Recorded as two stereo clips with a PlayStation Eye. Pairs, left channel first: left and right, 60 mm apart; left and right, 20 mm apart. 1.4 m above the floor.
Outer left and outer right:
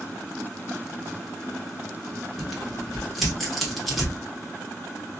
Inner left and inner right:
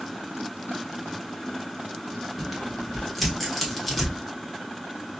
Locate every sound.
2.4 s tearing paper: 5° left (ahead or behind), 1.1 m